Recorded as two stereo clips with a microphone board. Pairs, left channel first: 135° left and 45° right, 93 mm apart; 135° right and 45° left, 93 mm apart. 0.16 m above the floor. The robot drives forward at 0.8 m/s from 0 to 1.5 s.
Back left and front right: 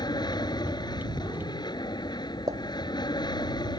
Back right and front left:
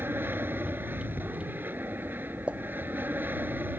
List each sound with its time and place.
0.0 s an aircraft: 110° left
2.5 s a pop: 25° right